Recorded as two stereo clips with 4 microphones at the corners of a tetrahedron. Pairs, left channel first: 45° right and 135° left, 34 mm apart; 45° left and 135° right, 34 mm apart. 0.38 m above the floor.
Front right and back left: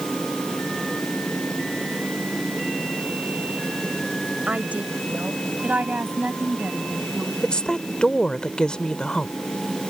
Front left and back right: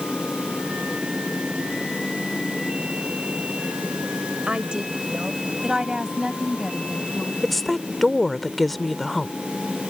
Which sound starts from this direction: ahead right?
A woman speaking, at 7.4 s.